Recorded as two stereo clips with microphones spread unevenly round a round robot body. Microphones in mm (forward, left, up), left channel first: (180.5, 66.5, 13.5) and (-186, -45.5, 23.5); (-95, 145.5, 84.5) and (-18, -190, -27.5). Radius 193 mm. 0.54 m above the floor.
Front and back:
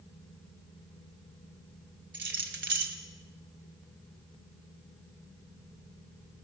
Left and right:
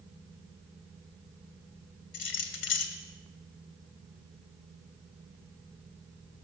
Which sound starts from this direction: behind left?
Keys jangling, at 2.1 s.